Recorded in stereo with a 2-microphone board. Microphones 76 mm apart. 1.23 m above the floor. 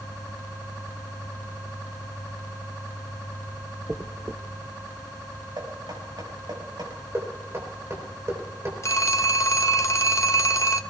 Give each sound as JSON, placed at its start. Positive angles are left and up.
{"t": 3.9, "sound": "a dropped coin", "side_deg": -30, "distance_m": 0.5}
{"t": 5.6, "sound": "knocking", "side_deg": -80, "distance_m": 5.5}
{"t": 7.1, "sound": "knocking", "side_deg": -40, "distance_m": 4.0}
{"t": 8.8, "sound": "a phone ringing", "side_deg": 40, "distance_m": 0.6}